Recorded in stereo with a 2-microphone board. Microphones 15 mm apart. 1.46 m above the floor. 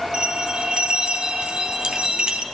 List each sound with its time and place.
0.1 s a bell: 65° right (ahead or behind), 3 m